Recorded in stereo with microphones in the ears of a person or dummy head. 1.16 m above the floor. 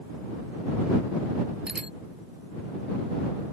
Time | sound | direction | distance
1.7 | a bicycle bell | 5° right (ahead or behind) | ?